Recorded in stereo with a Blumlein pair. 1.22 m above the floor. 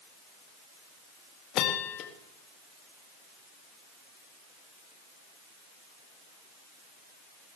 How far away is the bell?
About 1.6 m.